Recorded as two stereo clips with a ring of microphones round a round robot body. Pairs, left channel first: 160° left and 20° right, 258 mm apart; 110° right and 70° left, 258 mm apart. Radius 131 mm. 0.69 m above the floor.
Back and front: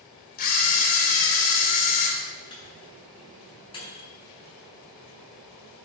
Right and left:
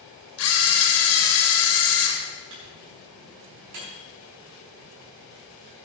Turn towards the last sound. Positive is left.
turn(degrees=85)